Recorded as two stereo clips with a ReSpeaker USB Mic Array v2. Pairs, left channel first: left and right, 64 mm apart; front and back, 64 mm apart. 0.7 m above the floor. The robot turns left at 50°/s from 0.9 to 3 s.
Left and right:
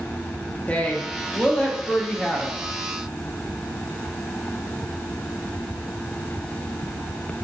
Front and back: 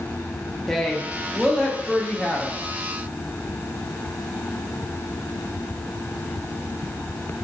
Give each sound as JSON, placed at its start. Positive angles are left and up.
{"t": 0.7, "sound": "a woman speaking", "azimuth_deg": 85, "distance_m": 0.5}